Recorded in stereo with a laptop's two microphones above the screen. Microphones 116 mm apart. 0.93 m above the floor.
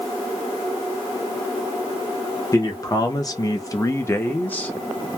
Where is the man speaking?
30° left (ahead or behind), 0.9 m; by 4.7 s 15° left (ahead or behind), 1.0 m.